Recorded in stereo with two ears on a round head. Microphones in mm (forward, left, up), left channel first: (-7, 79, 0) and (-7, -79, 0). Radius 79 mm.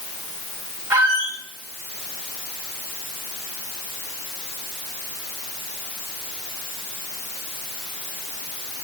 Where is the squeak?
10° right (ahead or behind), 2.5 m.